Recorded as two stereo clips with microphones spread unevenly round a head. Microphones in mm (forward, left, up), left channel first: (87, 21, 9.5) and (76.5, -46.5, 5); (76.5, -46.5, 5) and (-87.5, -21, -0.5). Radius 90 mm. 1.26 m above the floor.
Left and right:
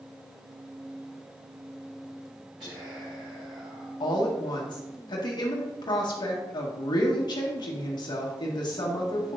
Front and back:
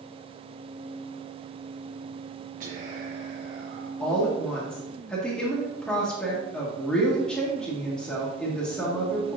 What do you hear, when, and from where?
2.6 s whispering: 145° right, 1.0 m
4.0 s a woman speaking: 75° left, 1.5 m